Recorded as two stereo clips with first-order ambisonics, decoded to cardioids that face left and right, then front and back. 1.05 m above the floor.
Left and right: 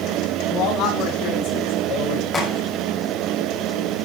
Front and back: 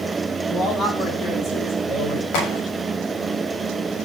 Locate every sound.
0.5 s a man speaking: 55° left, 9.5 m; by 2.2 s 40° left, 10 m
2.3 s a crack: 15° left, 7.5 m